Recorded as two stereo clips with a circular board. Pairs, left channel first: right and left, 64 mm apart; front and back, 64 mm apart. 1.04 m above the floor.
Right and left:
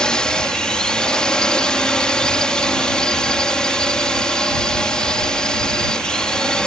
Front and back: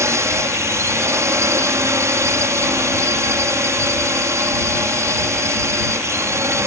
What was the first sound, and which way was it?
A drone, 165° right.